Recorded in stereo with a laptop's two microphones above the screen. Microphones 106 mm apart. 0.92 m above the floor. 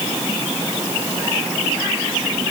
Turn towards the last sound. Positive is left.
No sound to turn to.